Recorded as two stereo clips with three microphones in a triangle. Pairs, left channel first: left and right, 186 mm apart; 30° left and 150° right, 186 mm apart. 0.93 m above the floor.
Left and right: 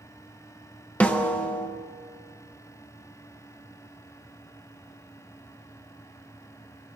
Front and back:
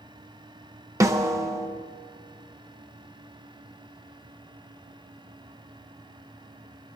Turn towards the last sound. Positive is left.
turn(degrees=165)